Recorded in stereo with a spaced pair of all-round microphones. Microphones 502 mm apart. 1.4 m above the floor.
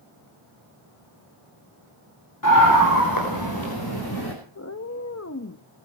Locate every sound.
2.4 s a scream: 35° left (ahead or behind), 4.5 m; by 4.3 s 45° left (ahead or behind), 5.5 m
4.5 s a cat meowing: 30° left (ahead or behind), 0.9 m